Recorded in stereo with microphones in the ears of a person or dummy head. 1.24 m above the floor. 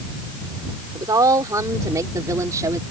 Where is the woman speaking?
20° right (ahead or behind).